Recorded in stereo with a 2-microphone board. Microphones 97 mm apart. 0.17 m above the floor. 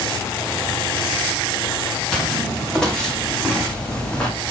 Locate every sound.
2.1 s footsteps: 5° left (ahead or behind), 9.5 m; by 4.3 s 10° left (ahead or behind), 7.5 m